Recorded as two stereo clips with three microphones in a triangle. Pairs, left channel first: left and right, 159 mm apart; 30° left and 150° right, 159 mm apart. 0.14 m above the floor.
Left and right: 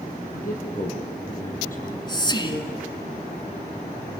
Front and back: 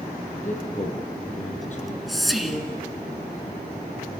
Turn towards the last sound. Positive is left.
turn(degrees=120)